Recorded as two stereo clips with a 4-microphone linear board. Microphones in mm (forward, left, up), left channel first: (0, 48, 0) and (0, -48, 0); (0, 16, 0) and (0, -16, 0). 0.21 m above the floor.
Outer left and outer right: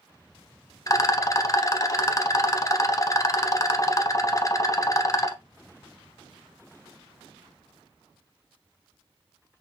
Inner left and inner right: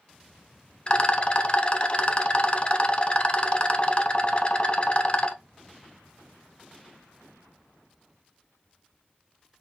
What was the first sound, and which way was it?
A rattle, 35° left (ahead or behind).